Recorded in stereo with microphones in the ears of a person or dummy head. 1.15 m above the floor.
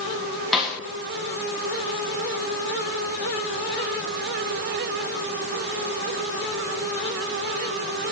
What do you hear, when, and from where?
0.5 s a snare drum: centre (ahead or behind), 1.2 m